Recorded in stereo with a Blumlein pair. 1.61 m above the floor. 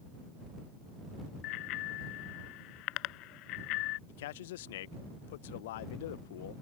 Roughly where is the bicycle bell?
Ahead left.